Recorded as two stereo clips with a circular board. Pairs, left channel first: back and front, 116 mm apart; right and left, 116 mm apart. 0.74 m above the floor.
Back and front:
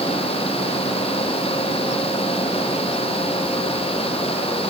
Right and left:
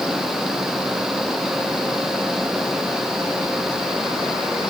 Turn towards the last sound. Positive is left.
No sound to turn to.